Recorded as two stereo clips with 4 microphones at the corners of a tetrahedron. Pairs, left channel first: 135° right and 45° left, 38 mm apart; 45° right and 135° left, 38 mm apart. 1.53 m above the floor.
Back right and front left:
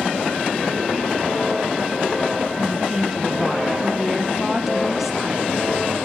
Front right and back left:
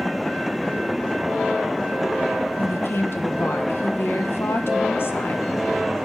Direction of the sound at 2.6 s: 40° right.